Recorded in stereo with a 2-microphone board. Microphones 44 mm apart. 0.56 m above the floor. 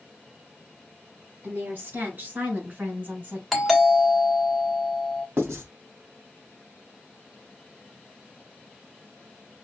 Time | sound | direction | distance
1.4 | a woman speaking | 45° right (ahead or behind) | 4 m
3.5 | a doorbell | centre (ahead or behind) | 1.3 m
5.4 | writing | 65° right (ahead or behind) | 2.5 m